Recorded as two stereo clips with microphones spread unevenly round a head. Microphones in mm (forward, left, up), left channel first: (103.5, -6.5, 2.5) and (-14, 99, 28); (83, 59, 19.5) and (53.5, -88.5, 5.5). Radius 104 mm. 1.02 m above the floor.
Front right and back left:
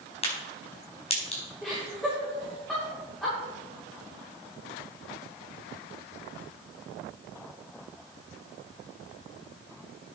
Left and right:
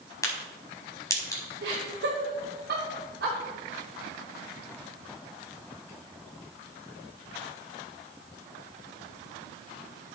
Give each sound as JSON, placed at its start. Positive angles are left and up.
{"t": 0.2, "sound": "a crack", "azimuth_deg": 10, "distance_m": 4.5}
{"t": 1.6, "sound": "laughter", "azimuth_deg": -130, "distance_m": 3.0}